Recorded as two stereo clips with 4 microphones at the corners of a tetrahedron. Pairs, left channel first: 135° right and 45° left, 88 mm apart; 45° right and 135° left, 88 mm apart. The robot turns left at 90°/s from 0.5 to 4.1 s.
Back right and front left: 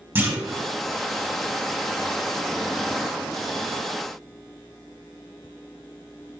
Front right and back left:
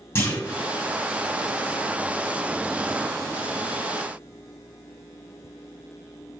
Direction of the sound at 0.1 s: Straight ahead.